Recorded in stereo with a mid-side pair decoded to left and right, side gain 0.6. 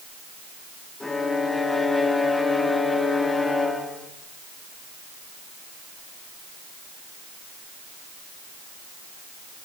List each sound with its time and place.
1.0 s a violin: 15° left, 3 m